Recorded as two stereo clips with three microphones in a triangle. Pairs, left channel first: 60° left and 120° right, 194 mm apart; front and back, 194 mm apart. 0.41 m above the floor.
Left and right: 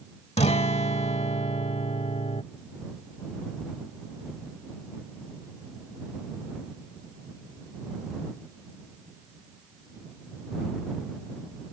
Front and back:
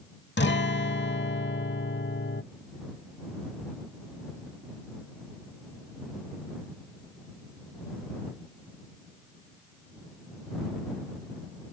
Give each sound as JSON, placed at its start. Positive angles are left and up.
{"t": 0.4, "sound": "a guitar", "azimuth_deg": 5}